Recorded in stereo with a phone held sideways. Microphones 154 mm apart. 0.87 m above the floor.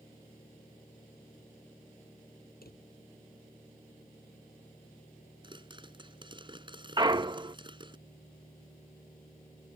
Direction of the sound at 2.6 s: 80° left.